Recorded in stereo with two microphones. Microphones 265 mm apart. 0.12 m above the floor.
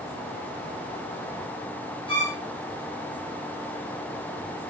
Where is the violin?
20° left (ahead or behind), 4 m.